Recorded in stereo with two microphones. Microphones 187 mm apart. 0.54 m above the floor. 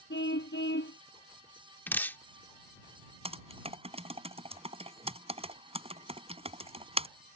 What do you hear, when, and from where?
0.1 s a car horn: 75° left (ahead or behind)
1.9 s dripping: 10° left (ahead or behind)
3.2 s typing on a keyboard: 30° right (ahead or behind)